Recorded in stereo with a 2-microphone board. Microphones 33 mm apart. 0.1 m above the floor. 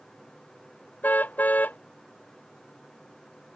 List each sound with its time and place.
1.0 s a car horn: 65° left (ahead or behind)